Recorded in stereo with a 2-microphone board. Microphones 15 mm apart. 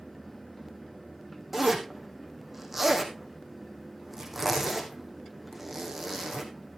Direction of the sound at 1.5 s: 15° right (ahead or behind).